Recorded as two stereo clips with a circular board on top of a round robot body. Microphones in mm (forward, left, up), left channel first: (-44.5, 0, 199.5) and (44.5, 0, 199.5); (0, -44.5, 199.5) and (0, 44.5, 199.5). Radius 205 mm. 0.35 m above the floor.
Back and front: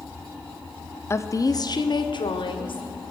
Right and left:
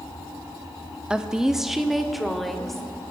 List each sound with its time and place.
1.1 s a woman speaking: 160° left, 1.4 m; by 3.0 s straight behind, 3 m